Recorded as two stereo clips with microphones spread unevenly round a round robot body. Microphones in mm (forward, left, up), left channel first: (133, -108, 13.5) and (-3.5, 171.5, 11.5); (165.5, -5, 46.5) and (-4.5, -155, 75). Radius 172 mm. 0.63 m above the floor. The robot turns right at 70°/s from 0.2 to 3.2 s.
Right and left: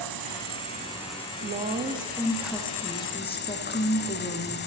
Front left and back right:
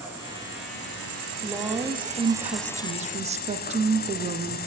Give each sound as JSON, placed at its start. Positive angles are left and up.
{"t": 0.0, "sound": "an insect", "azimuth_deg": 140, "distance_m": 0.8}
{"t": 1.4, "sound": "a woman speaking", "azimuth_deg": 130, "distance_m": 0.6}